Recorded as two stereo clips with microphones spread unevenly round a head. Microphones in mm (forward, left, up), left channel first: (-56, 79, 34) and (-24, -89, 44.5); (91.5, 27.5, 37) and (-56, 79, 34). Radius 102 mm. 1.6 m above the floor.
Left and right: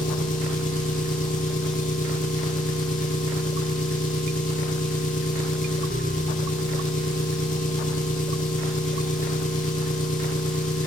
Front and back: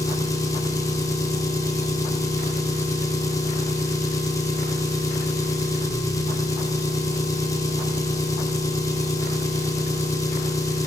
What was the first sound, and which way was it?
An engine running, 50° left.